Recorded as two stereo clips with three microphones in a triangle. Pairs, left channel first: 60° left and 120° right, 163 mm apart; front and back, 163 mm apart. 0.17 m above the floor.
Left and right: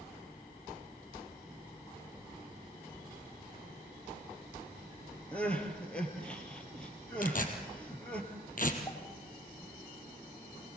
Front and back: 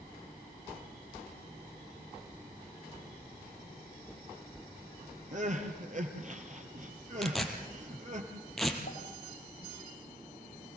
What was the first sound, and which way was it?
Crying, 140° left.